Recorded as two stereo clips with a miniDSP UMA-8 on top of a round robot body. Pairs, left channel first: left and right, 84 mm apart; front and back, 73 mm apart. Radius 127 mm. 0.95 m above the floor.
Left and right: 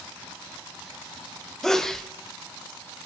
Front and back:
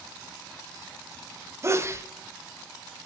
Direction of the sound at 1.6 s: 170° left.